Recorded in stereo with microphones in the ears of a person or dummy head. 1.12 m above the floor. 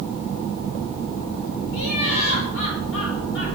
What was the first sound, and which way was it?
Laughter, 85° left.